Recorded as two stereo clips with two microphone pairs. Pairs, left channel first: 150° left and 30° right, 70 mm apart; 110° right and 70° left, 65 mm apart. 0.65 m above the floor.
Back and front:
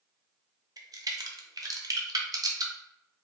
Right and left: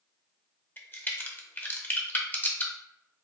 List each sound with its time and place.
0.8 s a crack: 55° right, 0.6 m